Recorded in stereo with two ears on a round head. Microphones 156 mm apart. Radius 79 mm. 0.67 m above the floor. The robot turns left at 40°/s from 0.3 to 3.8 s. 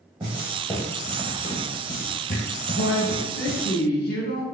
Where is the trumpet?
No trumpet in this recording.